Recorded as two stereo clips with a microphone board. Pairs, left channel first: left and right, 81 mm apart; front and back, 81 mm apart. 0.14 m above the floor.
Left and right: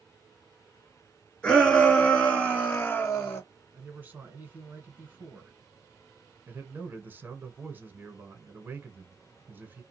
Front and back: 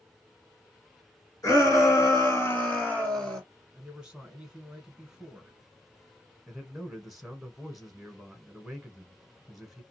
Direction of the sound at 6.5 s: 95° right.